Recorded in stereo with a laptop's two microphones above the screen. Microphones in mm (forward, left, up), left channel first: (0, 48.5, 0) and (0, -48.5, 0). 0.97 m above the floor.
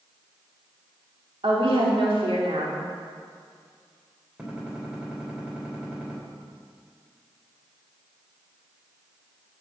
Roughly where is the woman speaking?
Right.